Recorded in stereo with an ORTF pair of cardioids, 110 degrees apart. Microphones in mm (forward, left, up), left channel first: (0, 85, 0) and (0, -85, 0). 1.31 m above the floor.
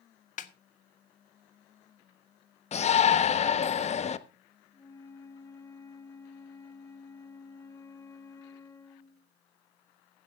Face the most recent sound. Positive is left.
turn(degrees=15)